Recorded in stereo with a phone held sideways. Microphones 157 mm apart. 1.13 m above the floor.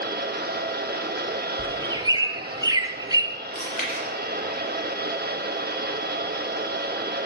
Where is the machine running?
90° right, 1.1 m.